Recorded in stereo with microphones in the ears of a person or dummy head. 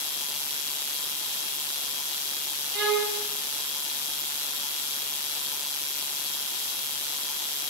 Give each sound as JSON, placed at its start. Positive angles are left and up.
{"t": 2.7, "sound": "a violin", "side_deg": -50, "distance_m": 0.8}